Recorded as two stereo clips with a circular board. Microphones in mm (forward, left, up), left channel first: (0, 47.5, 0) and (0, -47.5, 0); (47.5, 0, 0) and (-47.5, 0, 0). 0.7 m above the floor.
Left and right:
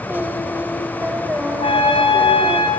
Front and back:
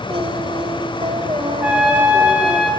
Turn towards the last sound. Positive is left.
turn(degrees=100)